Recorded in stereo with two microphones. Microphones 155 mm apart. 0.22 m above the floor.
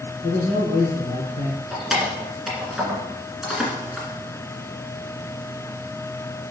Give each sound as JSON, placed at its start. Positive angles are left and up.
{"t": 0.2, "sound": "a man speaking", "side_deg": 50, "distance_m": 2.5}
{"t": 1.7, "sound": "keys jangling", "side_deg": -5, "distance_m": 1.8}